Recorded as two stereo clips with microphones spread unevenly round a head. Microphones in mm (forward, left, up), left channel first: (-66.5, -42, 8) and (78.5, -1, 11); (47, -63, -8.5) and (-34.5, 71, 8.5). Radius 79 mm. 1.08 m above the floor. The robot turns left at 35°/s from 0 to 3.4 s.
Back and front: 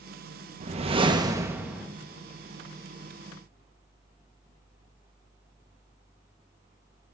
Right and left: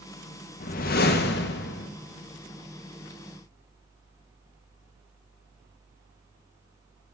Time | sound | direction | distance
0.6 | a whoosh | 25° right | 0.8 m